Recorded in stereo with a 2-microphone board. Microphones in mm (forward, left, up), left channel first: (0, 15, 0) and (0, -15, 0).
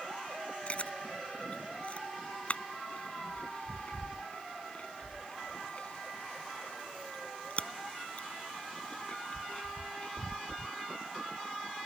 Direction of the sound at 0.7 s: 40° left (ahead or behind).